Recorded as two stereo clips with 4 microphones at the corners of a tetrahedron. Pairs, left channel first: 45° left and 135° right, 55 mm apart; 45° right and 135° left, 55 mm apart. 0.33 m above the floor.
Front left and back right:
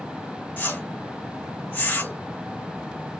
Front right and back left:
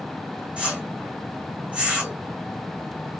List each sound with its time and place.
0.6 s a whoosh: 80° left, 1.2 m